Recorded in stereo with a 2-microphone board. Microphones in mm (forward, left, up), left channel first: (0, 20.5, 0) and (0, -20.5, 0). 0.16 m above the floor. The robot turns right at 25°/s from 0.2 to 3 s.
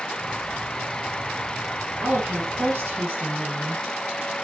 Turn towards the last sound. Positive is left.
turn(degrees=-70)  # may be behind; listen again after turning